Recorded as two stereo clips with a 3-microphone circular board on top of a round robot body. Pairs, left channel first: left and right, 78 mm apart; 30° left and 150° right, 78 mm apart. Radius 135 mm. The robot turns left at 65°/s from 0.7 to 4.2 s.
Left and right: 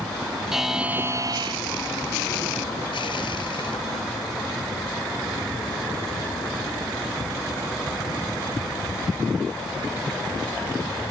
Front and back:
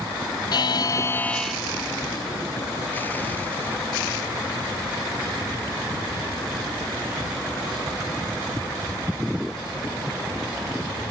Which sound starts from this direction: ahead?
A buzzer, at 0.5 s.